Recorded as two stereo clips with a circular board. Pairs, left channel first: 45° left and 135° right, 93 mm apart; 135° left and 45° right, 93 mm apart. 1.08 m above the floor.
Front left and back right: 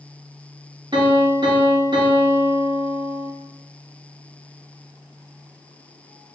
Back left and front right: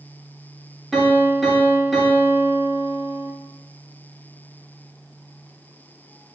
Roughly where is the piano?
Behind right.